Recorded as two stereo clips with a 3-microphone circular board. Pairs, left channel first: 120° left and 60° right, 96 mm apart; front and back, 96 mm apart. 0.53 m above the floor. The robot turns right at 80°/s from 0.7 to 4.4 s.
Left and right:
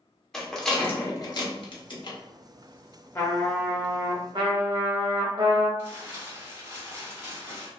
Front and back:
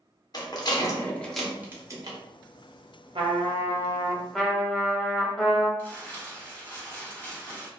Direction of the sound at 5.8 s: 30° right.